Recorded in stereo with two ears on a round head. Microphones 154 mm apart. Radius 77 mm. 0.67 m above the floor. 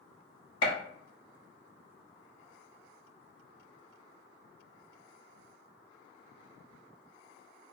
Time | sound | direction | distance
0.6 | a gunshot | 30° left (ahead or behind) | 1.1 m